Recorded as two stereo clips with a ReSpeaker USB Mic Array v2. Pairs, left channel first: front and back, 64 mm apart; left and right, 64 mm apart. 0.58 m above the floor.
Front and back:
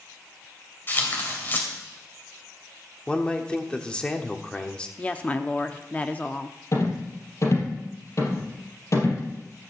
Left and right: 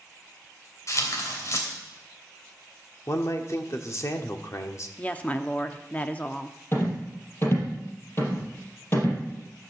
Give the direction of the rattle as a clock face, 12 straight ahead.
11 o'clock.